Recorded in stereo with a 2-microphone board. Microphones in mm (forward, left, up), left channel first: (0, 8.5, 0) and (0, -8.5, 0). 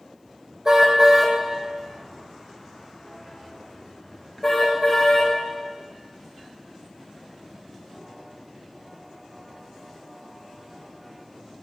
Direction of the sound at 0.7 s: 35° right (ahead or behind).